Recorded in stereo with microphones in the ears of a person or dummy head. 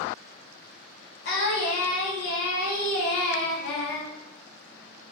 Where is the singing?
55° left (ahead or behind), 0.6 m.